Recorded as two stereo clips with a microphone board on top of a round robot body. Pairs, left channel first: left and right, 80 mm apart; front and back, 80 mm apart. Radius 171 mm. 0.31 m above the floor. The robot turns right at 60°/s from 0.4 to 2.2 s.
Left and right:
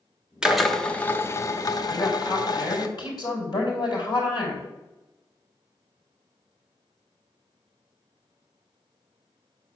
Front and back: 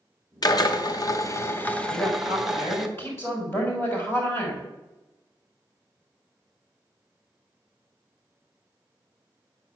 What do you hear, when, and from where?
0.4 s a drill: 10° right, 1.3 m; by 2.9 s 95° left, 1.3 m
1.9 s a woman speaking: 40° left, 4.5 m; by 4.7 s 60° left, 4.5 m